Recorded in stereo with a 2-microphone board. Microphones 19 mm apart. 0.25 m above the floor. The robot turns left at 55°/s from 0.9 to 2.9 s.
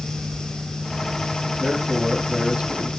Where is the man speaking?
20° right, 3.5 m; by 2.9 s 90° right, 3.5 m.